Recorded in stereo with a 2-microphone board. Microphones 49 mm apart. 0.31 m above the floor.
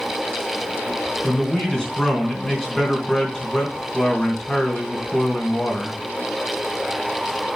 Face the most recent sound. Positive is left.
turn(degrees=15)  # may be behind; listen again after turning